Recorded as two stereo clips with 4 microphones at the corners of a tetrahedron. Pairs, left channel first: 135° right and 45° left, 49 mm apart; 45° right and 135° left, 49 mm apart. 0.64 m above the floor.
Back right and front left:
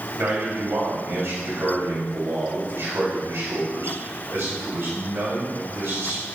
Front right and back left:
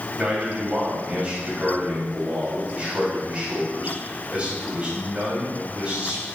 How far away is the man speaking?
About 3 m.